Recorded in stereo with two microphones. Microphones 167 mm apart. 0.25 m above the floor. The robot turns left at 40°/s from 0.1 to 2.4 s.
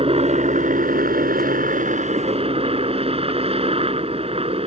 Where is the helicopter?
45° right; by 4.7 s 135° right.